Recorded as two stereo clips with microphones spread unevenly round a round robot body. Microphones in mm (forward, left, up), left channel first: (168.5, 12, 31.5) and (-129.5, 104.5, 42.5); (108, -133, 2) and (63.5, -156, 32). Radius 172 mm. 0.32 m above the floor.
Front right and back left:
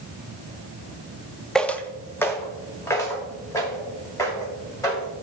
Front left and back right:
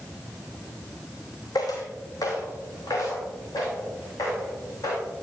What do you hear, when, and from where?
1.6 s footsteps: 70° left, 0.6 m; by 5.1 s 65° left, 4.5 m